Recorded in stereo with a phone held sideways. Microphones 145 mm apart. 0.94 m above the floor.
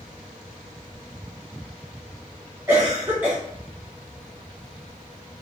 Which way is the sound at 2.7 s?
15° right (ahead or behind).